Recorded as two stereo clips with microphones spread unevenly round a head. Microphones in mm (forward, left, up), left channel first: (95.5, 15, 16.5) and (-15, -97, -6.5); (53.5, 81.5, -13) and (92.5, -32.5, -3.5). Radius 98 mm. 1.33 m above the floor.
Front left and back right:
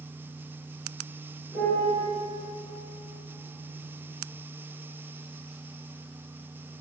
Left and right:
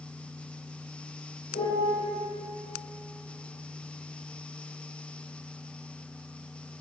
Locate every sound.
1.5 s a piano: 130° left, 3 m